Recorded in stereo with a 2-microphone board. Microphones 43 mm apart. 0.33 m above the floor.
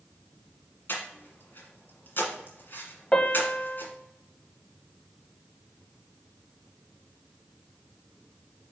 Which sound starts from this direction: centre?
A piano, at 3.1 s.